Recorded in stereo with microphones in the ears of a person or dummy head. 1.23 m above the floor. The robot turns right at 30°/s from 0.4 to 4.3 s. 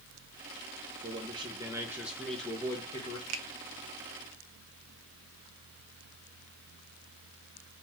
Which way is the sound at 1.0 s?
35° right.